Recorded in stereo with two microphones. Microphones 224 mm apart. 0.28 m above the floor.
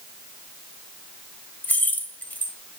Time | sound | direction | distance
1.6 | keys jangling | 10° left (ahead or behind) | 0.7 m